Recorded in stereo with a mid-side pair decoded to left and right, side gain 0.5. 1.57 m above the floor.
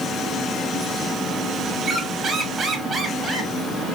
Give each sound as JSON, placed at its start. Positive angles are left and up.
{"t": 1.8, "sound": "a squeak", "azimuth_deg": -35, "distance_m": 1.5}